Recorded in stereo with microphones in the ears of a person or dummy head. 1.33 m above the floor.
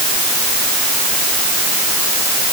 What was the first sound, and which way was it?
Only background noise.